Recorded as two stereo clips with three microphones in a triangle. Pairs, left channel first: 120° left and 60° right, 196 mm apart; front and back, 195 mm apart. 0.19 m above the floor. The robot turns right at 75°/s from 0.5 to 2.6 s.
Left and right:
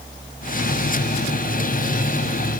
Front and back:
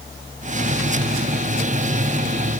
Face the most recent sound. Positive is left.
No sound to turn to.